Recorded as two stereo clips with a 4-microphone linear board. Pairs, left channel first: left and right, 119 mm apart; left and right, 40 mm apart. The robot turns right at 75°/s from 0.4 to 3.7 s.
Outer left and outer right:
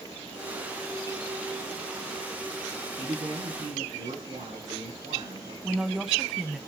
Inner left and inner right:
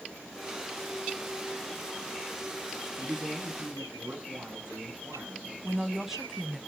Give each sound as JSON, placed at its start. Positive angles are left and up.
{"t": 3.0, "sound": "a man speaking", "azimuth_deg": -140, "distance_m": 7.5}
{"t": 5.6, "sound": "a woman speaking", "side_deg": -5, "distance_m": 1.1}